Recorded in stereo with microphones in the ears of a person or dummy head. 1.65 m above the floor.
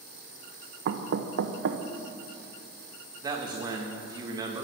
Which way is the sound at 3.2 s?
30° right (ahead or behind).